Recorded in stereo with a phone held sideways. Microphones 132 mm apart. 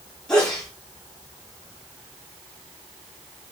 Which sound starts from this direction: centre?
A sneeze, at 0.3 s.